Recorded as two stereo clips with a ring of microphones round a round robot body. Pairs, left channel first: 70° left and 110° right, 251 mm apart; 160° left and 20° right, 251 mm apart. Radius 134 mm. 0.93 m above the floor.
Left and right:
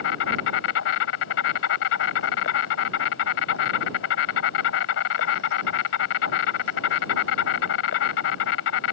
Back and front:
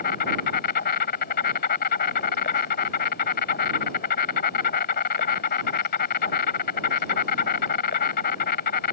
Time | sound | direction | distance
0.0 | an insect | 105° left | ?